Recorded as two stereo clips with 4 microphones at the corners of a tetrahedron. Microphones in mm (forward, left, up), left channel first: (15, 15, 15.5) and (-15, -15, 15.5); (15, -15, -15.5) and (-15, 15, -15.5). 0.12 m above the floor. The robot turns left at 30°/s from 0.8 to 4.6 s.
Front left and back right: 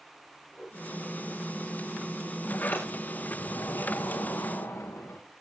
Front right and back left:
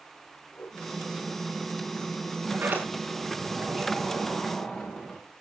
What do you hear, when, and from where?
0.5 s a whoosh: 30° right, 7 m
2.5 s a sliding door: 90° left, 5.5 m; by 5.2 s 30° left, 5.5 m